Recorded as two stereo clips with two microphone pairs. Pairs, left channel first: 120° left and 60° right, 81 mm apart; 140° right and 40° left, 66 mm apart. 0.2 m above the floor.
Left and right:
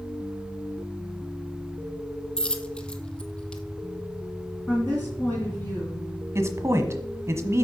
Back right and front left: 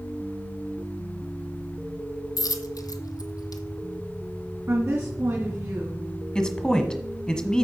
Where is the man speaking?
70° right, 1.2 m.